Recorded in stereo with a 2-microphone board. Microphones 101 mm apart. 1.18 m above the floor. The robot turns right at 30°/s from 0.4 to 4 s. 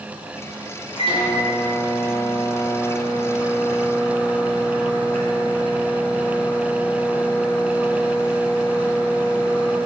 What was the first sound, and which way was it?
A microwave, 65° left.